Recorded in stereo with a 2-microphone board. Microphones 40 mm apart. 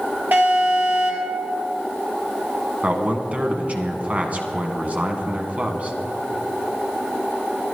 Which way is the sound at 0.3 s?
50° right (ahead or behind).